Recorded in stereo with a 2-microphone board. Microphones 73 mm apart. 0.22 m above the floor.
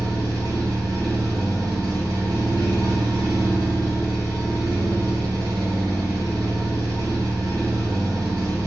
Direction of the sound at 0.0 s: 65° right (ahead or behind).